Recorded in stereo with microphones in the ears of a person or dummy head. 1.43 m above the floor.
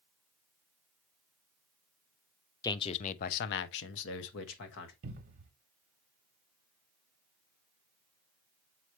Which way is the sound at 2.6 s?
20° left (ahead or behind).